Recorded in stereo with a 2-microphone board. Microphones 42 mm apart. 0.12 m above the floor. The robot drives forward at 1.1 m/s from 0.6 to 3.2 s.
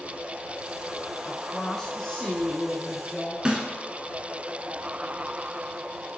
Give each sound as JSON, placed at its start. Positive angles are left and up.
{"t": 1.2, "sound": "a woman speaking", "side_deg": 15, "distance_m": 1.0}
{"t": 3.5, "sound": "a snare drum", "side_deg": -20, "distance_m": 1.5}